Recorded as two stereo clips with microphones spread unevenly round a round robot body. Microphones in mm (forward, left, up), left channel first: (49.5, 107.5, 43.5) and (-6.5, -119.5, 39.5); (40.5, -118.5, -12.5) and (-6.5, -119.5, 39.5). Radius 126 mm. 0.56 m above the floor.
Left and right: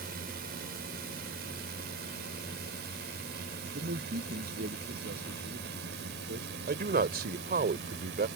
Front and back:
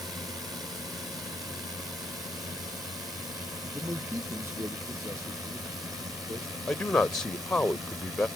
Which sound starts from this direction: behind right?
A drone, at 0.0 s.